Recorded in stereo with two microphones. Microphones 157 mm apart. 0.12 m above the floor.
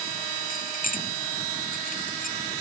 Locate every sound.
0.5 s keys jangling: 60° left (ahead or behind)